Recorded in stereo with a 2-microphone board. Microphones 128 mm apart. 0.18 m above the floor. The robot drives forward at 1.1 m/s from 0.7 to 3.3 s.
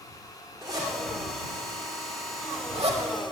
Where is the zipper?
25° right (ahead or behind), 4 m; by 3.0 s 55° right (ahead or behind), 2 m.